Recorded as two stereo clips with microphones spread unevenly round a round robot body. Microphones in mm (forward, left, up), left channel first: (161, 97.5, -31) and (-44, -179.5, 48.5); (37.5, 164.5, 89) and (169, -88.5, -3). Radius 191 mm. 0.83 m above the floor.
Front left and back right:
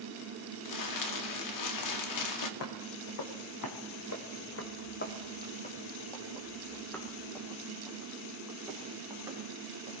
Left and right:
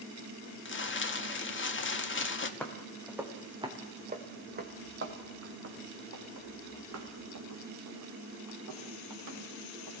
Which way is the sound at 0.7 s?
60° left.